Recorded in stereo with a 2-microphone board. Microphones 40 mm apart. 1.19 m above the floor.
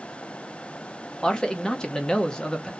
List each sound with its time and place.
1.2 s a man speaking: 15° left (ahead or behind), 0.8 m